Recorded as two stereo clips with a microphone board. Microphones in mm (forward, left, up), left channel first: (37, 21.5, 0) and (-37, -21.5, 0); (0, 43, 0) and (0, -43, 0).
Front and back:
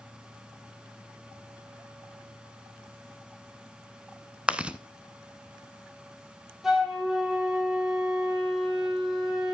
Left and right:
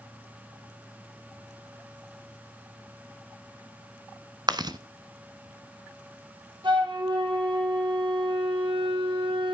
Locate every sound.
4.5 s chewing: 75° right, 0.8 m
6.6 s a flute: 65° right, 4 m